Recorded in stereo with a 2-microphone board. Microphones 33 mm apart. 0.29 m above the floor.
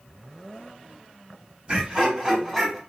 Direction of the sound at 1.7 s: 30° right (ahead or behind).